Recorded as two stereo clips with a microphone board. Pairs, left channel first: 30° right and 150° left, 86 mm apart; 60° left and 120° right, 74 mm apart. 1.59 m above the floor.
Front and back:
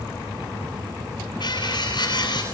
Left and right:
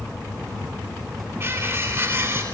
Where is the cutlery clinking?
65° right, 9.5 m.